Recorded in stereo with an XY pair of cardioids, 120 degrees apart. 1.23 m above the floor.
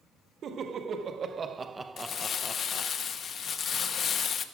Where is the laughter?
50° right, 1.9 m; by 2.9 s 45° left, 0.8 m.